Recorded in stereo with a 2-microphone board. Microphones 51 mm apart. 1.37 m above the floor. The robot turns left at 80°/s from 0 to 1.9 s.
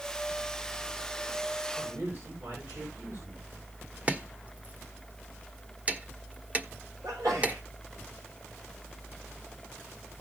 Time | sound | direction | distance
1.8 | a man speaking | 55° right (ahead or behind) | 5.5 m
4.1 | chopping | 25° right (ahead or behind) | 1.2 m
7.0 | a sneeze | 85° right | 6 m